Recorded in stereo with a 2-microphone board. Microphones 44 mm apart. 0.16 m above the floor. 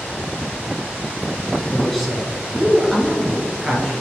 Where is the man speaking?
5° left (ahead or behind), 1.6 m; by 3.9 s 15° right (ahead or behind), 2.5 m.